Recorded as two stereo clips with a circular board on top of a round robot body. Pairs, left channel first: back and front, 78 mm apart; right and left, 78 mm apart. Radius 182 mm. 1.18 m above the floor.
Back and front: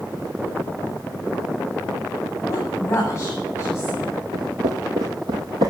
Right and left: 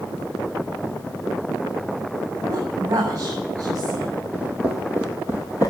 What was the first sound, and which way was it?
A woman speaking, 120° left.